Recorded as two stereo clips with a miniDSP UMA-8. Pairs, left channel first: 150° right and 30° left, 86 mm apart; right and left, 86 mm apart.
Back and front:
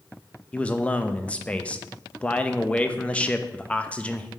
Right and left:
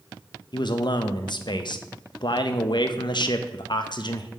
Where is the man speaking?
75° right, 0.5 m.